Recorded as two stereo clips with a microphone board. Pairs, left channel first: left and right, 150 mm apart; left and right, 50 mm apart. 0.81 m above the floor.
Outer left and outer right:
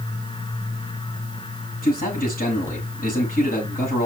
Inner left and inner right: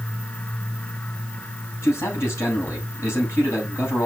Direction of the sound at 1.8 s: 70° left (ahead or behind).